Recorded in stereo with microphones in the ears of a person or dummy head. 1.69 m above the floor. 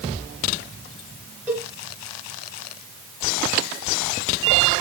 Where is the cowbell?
10° right (ahead or behind), 3.5 m.